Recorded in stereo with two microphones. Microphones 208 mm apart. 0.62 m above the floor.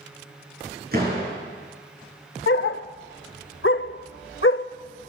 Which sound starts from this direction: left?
A dog barking, at 2.5 s.